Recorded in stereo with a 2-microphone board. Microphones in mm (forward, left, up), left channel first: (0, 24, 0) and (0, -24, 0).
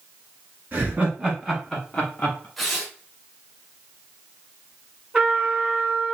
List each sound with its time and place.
0.7 s laughter: 40° right (ahead or behind), 1.4 m; by 2.5 s 30° left (ahead or behind), 1.4 m
2.6 s tearing paper: centre (ahead or behind), 0.8 m
5.1 s a trumpet: 25° right (ahead or behind), 1.3 m